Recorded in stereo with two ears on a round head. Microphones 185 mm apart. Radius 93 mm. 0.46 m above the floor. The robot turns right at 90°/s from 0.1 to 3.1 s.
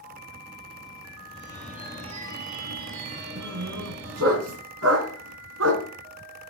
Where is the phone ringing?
145° left, 4 m; by 4.4 s 55° right, 4 m.